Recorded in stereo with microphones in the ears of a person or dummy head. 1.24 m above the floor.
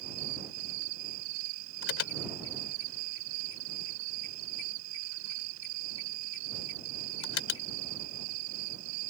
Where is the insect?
70° right (ahead or behind).